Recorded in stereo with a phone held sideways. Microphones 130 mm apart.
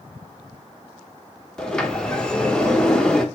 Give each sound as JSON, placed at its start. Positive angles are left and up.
{"t": 1.6, "sound": "a sliding door", "side_deg": 5, "distance_m": 0.6}